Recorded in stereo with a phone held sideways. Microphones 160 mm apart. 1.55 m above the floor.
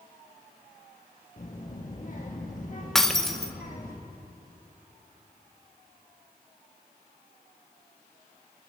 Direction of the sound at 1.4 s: 55° left (ahead or behind).